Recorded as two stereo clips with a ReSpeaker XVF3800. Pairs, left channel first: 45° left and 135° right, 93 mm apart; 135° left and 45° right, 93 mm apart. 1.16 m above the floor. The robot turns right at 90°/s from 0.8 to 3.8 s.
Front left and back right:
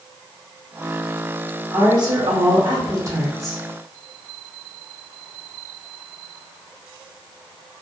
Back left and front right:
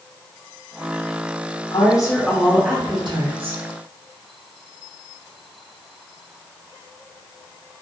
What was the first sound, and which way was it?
A woman speaking, 160° left.